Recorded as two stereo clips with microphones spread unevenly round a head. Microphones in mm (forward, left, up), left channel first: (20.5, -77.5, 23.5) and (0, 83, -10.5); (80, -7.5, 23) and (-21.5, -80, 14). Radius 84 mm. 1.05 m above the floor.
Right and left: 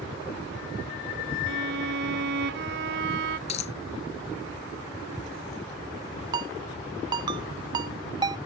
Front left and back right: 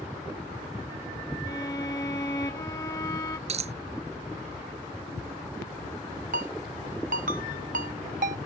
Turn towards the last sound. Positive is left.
turn(degrees=165)